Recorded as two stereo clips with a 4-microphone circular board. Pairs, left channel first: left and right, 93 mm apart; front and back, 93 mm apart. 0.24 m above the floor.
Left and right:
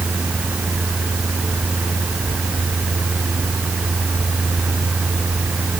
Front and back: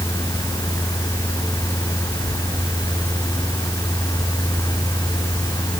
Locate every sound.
Only background noise.